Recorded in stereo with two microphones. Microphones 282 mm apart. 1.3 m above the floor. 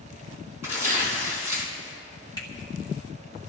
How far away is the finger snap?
About 2.5 m.